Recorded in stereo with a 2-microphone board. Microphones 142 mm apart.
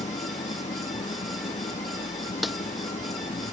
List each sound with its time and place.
0.0 s an engine running: 55° left (ahead or behind)
2.4 s a snare drum: centre (ahead or behind)